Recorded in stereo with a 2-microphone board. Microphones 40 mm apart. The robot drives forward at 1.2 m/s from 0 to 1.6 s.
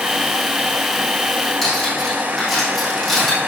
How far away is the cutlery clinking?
About 5 m.